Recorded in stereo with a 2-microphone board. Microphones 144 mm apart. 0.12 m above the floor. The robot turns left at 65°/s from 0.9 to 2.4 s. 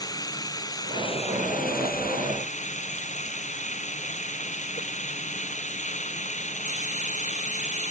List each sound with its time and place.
0.0 s running water: 155° left; by 7.9 s 55° left